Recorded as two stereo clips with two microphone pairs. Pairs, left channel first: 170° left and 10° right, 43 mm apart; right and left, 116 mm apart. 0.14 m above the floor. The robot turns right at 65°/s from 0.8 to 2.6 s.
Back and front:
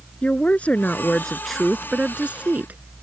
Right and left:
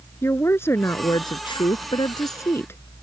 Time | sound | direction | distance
0.2 | a woman speaking | 150° right | ?